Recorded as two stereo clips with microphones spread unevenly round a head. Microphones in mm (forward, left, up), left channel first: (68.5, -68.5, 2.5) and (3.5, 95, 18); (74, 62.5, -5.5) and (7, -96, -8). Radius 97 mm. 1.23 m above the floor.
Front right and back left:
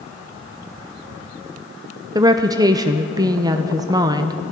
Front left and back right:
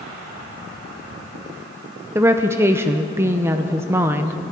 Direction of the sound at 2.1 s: Straight behind.